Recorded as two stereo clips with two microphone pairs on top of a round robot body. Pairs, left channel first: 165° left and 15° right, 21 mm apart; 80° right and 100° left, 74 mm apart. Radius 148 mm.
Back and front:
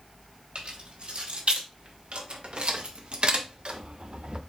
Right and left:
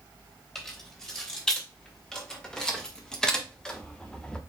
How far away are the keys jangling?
About 3 m.